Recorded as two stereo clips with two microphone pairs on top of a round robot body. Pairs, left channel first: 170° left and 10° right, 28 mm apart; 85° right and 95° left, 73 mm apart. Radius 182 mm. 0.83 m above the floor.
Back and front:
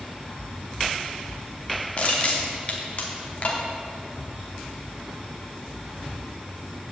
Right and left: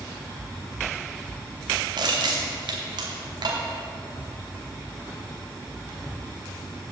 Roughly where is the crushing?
Behind left.